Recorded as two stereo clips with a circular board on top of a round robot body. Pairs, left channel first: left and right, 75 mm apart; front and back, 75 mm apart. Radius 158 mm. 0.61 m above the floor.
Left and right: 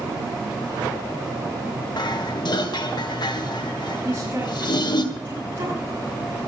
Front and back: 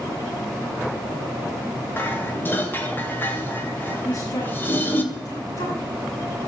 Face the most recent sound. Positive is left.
turn(degrees=-30)